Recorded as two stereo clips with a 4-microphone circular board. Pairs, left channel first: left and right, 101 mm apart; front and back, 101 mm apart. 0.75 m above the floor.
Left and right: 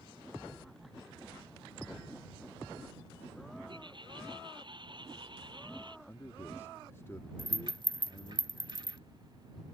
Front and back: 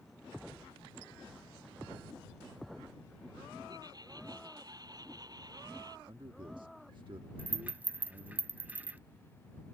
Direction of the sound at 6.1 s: 150° left.